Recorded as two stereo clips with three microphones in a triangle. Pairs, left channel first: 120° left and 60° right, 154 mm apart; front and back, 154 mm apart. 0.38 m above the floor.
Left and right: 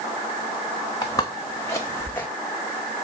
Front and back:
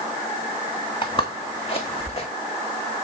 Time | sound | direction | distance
1.0 | footsteps | 55° left | 1.8 m